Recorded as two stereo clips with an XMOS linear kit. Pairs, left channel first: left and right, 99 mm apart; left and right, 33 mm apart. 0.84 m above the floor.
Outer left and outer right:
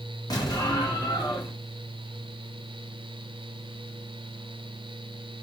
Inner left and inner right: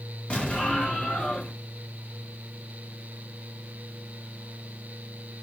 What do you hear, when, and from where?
0.3 s an explosion: 40° left (ahead or behind), 1.0 m